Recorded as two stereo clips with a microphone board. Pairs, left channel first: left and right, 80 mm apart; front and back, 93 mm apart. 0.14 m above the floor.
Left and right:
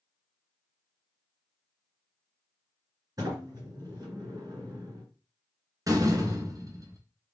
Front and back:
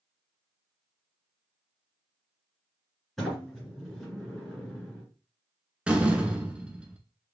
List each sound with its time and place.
3.2 s a sliding door: 90° right, 2 m
5.9 s a door slam: 105° right, 1.0 m